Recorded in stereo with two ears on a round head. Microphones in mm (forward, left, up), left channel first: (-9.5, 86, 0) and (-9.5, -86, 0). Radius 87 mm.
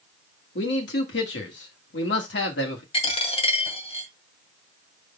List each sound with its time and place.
0.6 s a man speaking: 65° left (ahead or behind), 2.5 m
2.9 s a dropped coin: 30° left (ahead or behind), 1.9 m